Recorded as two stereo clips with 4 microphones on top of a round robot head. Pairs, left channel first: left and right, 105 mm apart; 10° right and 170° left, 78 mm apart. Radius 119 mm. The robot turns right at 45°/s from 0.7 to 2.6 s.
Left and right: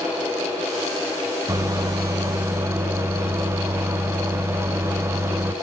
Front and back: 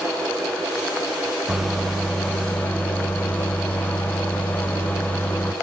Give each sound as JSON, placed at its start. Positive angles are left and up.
{"t": 1.5, "sound": "a microwave", "azimuth_deg": -105, "distance_m": 0.7}